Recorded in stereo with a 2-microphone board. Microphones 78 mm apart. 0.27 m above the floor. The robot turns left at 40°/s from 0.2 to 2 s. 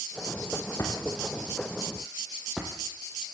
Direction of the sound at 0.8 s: 45° left (ahead or behind).